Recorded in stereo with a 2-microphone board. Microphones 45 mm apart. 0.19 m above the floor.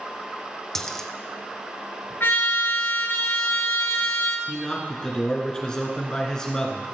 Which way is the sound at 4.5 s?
15° left (ahead or behind).